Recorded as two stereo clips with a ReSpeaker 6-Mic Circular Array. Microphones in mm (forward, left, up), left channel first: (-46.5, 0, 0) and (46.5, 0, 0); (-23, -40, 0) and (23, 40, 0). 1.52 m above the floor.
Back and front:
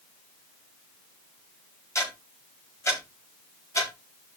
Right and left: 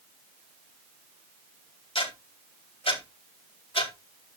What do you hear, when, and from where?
1.9 s ticking: 120° right, 4.5 m